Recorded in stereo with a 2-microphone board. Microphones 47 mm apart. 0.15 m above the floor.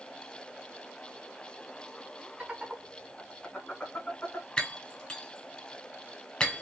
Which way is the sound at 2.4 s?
25° right (ahead or behind).